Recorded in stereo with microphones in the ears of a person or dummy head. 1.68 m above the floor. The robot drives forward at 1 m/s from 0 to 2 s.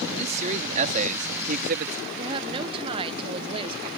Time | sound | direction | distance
0.1 | a man speaking | 35° right (ahead or behind) | ?
2.2 | a woman speaking | 30° right (ahead or behind) | ?